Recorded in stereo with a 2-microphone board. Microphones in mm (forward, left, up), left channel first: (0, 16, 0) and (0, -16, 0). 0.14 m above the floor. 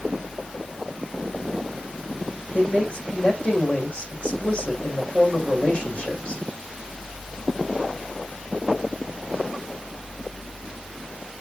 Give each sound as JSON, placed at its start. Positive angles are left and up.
{"t": 2.5, "sound": "a man speaking", "side_deg": 45, "distance_m": 6.5}